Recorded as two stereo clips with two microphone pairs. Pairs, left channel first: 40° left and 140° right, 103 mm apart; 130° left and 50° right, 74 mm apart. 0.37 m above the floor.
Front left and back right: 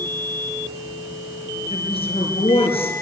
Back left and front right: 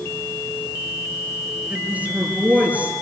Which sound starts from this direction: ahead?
A woman speaking, at 1.7 s.